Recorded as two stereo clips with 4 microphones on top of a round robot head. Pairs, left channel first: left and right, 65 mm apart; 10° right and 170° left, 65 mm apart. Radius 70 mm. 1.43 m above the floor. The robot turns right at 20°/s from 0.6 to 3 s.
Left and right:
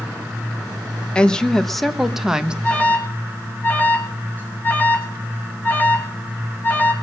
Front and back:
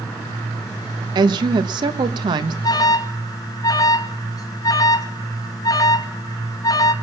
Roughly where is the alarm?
Ahead.